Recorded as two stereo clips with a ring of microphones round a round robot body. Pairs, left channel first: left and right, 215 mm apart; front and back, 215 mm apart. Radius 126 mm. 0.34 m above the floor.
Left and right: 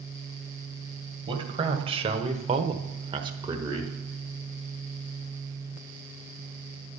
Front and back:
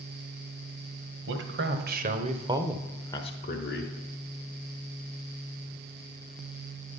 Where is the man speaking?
155° right, 1.9 m; by 3.9 s 15° right, 1.5 m.